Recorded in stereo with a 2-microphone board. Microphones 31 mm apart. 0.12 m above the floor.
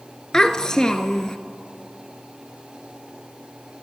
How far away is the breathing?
No breathing in this recording.